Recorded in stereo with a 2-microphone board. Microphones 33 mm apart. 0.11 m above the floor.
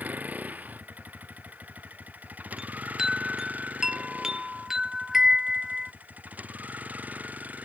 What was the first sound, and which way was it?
A vehicle, 60° right (ahead or behind).